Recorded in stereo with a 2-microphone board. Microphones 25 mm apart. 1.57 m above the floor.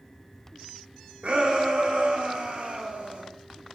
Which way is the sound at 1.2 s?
65° right (ahead or behind).